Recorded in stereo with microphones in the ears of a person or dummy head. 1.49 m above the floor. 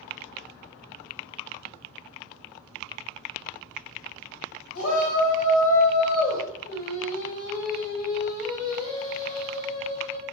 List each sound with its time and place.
4.8 s a shout: 80° left, 2.0 m; by 6.4 s 50° left (ahead or behind), 2.0 m
6.6 s singing: 45° left (ahead or behind), 1.7 m